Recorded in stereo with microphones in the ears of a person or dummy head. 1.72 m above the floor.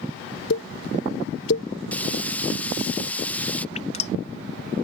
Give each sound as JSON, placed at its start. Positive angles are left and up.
{"t": 0.5, "sound": "a pop", "side_deg": 80}
{"t": 1.9, "sound": "frying", "side_deg": 0}
{"t": 3.8, "sound": "dripping", "side_deg": 45}